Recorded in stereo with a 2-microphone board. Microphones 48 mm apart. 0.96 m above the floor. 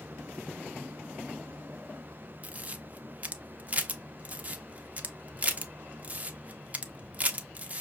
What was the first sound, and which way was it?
A camera shutter, 30° right (ahead or behind).